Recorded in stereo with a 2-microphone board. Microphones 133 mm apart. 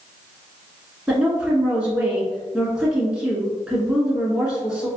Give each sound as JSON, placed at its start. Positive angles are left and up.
{"t": 1.1, "sound": "a woman speaking", "side_deg": -5, "distance_m": 1.1}